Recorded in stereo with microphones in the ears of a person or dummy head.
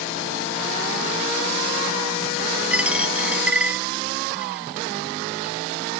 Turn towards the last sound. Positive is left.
turn(degrees=5)  # may be behind; listen again after turning